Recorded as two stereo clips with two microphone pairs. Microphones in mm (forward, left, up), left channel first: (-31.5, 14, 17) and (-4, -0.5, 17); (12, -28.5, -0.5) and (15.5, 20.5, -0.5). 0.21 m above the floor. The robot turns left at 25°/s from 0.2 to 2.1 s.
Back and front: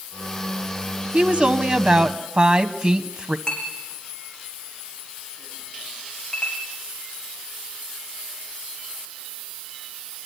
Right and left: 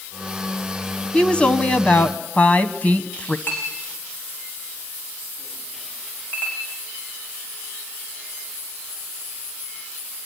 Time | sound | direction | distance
1.1 | a woman speaking | 40° right | 1.2 m
3.5 | a clink | 145° right | 7.5 m